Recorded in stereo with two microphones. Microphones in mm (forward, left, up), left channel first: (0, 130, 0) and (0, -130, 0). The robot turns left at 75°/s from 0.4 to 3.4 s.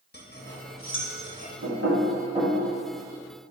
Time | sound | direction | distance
0.1 | cutlery clinking | 40° left (ahead or behind) | 0.9 m
1.6 | knocking | 80° right | 1.8 m